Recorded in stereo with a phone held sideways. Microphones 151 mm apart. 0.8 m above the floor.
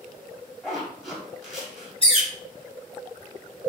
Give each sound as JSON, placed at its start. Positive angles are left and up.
{"t": 0.6, "sound": "a zipper", "side_deg": 0, "distance_m": 1.7}
{"t": 2.0, "sound": "a bird", "side_deg": 35, "distance_m": 1.2}